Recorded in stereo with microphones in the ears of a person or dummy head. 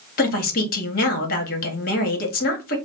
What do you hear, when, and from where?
0.2 s a woman speaking: 50° left (ahead or behind), 1.1 m